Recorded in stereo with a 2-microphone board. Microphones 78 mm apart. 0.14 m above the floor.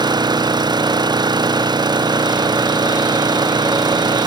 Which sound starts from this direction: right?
An engine running, at 0.0 s.